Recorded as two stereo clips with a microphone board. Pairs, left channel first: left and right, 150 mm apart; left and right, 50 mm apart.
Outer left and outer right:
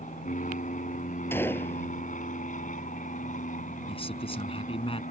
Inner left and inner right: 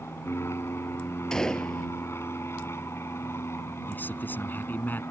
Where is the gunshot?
15° left (ahead or behind).